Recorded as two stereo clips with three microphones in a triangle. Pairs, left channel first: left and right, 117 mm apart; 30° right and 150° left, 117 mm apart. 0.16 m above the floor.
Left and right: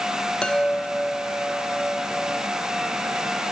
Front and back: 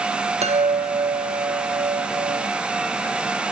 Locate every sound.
0.4 s a chime: 175° left, 0.9 m